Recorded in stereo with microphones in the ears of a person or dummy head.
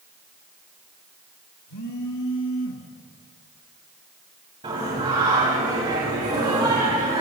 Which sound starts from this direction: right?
Singing, at 4.6 s.